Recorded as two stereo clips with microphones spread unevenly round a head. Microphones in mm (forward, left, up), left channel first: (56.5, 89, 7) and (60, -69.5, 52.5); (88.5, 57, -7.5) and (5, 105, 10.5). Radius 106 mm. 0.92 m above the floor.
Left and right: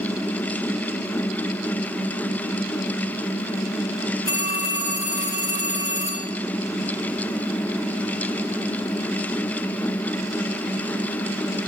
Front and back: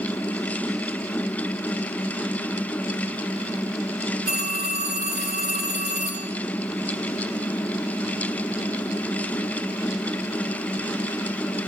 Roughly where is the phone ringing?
Behind.